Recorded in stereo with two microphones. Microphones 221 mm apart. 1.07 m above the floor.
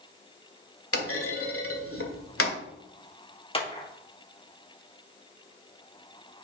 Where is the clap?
25° left (ahead or behind), 1.8 m.